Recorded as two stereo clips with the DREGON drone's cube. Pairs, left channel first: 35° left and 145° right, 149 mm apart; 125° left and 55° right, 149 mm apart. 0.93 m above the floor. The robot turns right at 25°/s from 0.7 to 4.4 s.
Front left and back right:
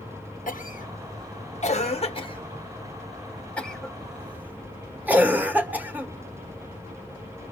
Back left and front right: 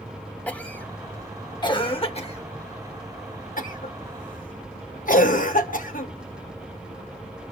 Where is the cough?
45° left, 1.1 m; by 6.1 s 135° left, 1.1 m.